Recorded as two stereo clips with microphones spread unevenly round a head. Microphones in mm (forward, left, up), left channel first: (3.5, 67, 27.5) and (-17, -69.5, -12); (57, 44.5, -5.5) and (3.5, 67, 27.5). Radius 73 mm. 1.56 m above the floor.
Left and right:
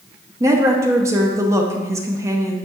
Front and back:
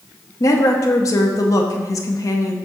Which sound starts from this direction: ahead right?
A woman speaking, at 0.4 s.